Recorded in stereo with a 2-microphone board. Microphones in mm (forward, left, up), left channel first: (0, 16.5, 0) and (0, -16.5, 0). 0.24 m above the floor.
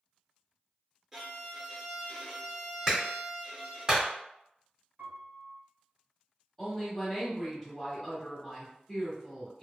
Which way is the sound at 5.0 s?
75° right (ahead or behind).